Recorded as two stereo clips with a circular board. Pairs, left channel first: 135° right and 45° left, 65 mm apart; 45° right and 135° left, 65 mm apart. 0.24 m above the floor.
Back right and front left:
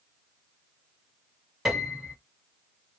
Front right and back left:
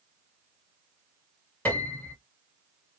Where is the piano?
30° right, 1.2 m.